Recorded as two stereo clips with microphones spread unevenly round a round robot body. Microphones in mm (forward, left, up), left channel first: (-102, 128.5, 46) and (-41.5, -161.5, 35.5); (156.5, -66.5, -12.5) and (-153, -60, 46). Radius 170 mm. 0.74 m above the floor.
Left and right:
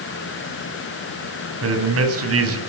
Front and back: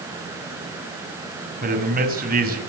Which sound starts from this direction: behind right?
A man speaking, at 1.6 s.